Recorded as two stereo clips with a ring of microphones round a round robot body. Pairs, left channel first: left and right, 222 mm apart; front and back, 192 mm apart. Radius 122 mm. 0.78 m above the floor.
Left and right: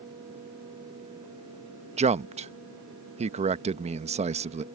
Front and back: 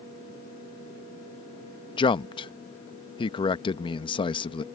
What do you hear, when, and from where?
2.0 s a man speaking: 50° right